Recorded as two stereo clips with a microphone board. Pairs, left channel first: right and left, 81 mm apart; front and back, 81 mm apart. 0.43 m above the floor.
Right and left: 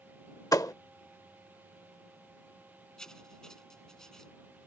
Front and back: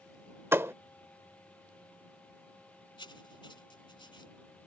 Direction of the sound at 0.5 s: 125° right.